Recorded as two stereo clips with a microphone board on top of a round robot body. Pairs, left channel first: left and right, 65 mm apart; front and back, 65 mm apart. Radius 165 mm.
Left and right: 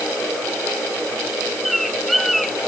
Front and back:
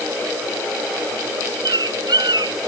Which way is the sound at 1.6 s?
Straight behind.